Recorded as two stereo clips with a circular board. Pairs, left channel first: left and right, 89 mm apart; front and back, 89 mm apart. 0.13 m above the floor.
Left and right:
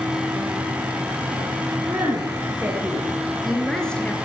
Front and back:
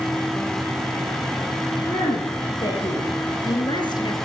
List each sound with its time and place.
1.9 s a woman speaking: 30° right, 3 m; by 4.2 s 20° left, 2 m